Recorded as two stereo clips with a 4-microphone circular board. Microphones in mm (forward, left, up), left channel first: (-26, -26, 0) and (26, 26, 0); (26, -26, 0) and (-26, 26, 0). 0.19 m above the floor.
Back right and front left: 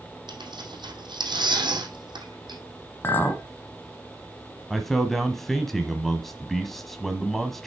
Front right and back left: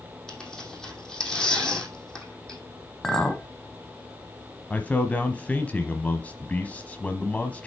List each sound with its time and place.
0.3 s tearing paper: 35° left, 2.5 m
3.0 s a clink: 120° right, 1.1 m
4.7 s a man speaking: 50° right, 1.0 m